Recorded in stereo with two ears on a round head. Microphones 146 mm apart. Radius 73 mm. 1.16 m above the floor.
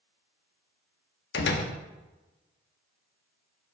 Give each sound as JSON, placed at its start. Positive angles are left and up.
{"t": 1.3, "sound": "a door slam", "side_deg": 70, "distance_m": 1.1}